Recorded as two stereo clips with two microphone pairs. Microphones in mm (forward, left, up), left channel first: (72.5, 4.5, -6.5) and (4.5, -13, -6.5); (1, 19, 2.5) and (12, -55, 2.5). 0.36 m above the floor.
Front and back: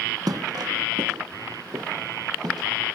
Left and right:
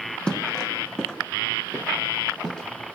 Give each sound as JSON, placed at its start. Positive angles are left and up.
{"t": 0.3, "sound": "footsteps", "azimuth_deg": 180, "distance_m": 0.8}